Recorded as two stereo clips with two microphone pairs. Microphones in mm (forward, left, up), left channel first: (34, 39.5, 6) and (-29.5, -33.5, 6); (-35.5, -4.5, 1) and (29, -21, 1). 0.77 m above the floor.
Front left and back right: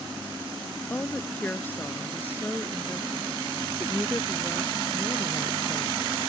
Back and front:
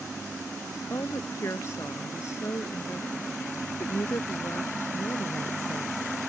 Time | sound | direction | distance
0.9 | a woman speaking | 120° left | ?